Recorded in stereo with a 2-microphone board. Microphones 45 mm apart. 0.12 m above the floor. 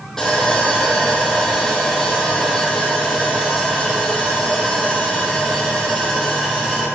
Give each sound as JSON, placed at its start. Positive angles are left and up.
{"t": 0.2, "sound": "sawing", "side_deg": 5, "distance_m": 2.5}